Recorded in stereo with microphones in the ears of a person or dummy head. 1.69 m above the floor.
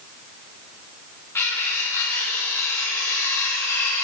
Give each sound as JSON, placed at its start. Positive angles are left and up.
{"t": 1.4, "sound": "cutlery clinking", "side_deg": 15, "distance_m": 2.0}